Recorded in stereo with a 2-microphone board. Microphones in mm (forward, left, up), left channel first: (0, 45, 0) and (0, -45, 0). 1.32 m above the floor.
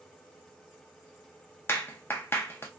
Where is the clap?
25° left (ahead or behind), 0.6 m.